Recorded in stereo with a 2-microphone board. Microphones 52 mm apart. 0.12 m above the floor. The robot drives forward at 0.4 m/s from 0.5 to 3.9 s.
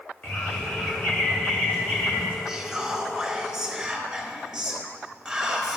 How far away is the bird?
About 2.5 m.